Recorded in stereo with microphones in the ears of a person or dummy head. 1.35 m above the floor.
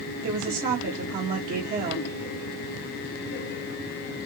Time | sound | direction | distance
0.2 | a woman speaking | 45° right (ahead or behind) | 1.1 m